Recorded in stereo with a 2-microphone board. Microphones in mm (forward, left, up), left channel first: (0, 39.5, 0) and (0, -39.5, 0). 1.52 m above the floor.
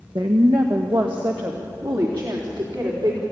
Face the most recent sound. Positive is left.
turn(degrees=-75)  # may be behind; listen again after turning